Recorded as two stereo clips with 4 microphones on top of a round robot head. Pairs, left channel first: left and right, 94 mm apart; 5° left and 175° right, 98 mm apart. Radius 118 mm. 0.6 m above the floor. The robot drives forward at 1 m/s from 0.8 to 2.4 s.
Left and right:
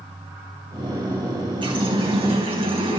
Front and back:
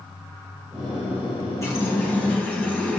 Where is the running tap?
60° right, 3.5 m; by 3.0 s 70° right, 3.5 m.